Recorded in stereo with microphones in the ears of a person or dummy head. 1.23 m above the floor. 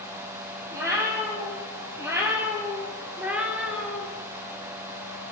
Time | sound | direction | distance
0.7 | a cat meowing | 20° right (ahead or behind) | 3 m